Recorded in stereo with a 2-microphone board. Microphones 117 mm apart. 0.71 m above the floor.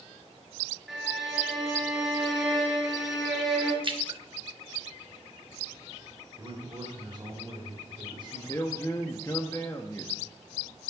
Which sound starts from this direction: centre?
A violin, at 0.9 s.